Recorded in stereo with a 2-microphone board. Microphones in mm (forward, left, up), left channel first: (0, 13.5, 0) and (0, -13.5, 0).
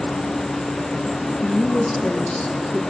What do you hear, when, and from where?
0.0 s an insect: 65° left (ahead or behind), 6 m
1.4 s a woman speaking: 50° left (ahead or behind), 1.7 m